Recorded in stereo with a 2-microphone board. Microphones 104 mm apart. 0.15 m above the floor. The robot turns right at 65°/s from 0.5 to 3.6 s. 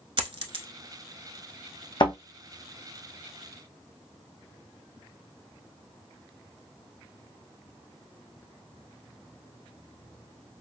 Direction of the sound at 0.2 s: 55° right (ahead or behind).